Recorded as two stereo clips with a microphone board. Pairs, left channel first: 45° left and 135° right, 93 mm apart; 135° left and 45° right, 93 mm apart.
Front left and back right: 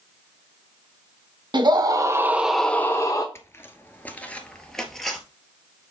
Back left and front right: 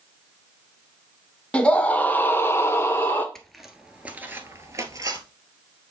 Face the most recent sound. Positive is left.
turn(degrees=-45)